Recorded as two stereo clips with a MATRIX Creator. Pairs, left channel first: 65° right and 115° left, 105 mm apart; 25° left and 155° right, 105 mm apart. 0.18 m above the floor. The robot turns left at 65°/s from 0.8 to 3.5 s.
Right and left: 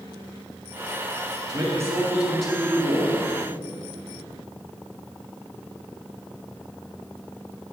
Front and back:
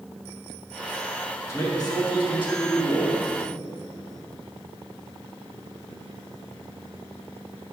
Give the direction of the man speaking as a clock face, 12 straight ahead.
9 o'clock.